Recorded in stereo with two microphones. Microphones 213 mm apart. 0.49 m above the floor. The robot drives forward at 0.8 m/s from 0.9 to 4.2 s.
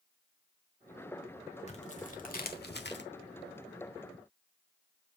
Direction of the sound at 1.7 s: 35° left (ahead or behind).